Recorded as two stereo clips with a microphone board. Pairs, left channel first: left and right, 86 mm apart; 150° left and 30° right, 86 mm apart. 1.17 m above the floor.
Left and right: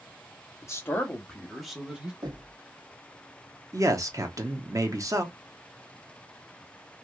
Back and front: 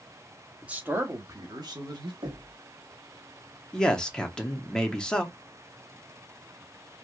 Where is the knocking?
55° right, 1.4 m.